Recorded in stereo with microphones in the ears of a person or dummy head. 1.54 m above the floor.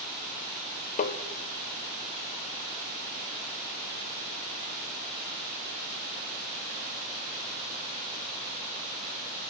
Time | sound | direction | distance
1.0 | tapping | 50° left (ahead or behind) | 0.8 m